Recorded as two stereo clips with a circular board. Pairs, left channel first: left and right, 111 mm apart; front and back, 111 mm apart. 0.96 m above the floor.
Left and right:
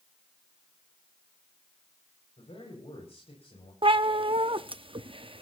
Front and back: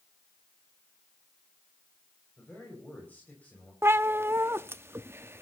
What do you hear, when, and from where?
2.4 s a man speaking: 75° left, 5 m
3.8 s a cat meowing: 115° right, 0.6 m